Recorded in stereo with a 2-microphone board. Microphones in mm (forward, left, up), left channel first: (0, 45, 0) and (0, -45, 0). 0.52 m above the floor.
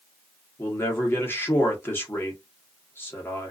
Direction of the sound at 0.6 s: 25° left (ahead or behind).